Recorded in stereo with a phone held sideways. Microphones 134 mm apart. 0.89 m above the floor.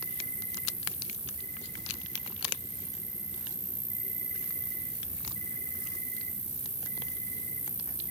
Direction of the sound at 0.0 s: 50° right (ahead or behind).